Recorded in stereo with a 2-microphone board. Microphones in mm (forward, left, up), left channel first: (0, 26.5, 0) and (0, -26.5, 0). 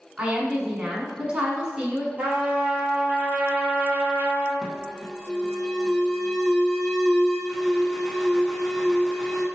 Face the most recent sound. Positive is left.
turn(degrees=5)  # may be behind; listen again after turning